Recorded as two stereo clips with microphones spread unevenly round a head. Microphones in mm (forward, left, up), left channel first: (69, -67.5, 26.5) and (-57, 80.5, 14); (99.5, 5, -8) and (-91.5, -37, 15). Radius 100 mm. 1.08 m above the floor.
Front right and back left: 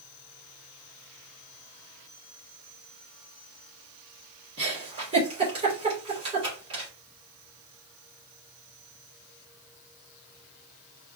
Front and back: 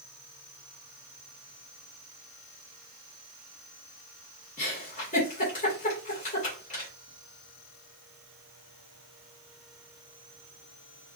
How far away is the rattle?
No rattle in this recording.